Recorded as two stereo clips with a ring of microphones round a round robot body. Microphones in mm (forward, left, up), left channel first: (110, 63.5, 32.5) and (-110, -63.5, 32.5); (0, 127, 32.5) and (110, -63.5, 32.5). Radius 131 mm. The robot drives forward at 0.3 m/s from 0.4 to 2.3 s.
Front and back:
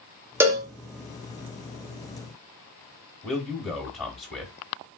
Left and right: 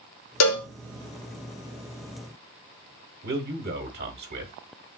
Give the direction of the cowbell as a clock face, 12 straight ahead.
8 o'clock.